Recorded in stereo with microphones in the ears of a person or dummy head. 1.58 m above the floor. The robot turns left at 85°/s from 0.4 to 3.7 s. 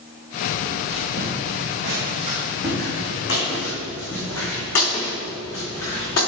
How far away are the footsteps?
About 2.5 m.